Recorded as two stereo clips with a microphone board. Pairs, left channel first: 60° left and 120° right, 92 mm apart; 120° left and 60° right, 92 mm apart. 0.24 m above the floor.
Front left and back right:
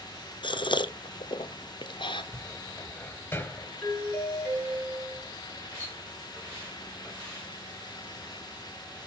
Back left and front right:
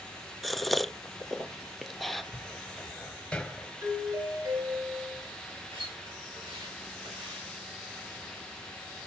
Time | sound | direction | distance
0.4 | a gasp | 30° left | 0.8 m
2.3 | a cupboard door | 60° left | 1.1 m
3.8 | a doorbell | 15° right | 5 m
5.7 | a splash | 55° right | 9.5 m